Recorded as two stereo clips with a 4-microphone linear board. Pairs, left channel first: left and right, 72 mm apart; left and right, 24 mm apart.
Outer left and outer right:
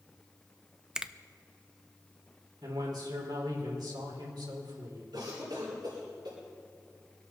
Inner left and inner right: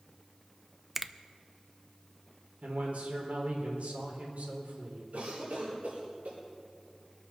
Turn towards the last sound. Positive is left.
turn(degrees=-85)